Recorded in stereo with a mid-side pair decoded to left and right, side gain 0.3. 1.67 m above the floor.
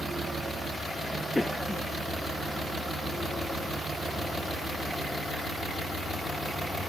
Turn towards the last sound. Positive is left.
turn(degrees=15)